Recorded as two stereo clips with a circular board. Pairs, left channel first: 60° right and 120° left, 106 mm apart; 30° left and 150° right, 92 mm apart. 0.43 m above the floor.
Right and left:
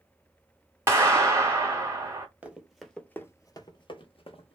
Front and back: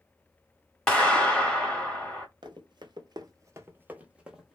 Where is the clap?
100° left, 1.2 m.